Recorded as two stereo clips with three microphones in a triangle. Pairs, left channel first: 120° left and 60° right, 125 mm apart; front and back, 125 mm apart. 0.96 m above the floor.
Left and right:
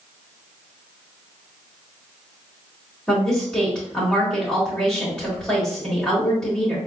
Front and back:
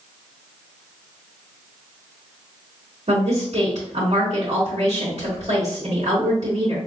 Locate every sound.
3.1 s a woman speaking: 160° right, 1.9 m